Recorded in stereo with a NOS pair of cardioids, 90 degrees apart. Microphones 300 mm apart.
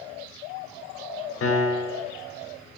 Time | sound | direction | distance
1.4 | a piano | 50° left | 0.8 m